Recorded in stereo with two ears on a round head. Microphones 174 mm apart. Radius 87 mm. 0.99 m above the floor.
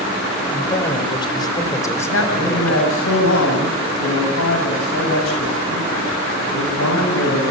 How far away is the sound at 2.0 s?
About 6.5 m.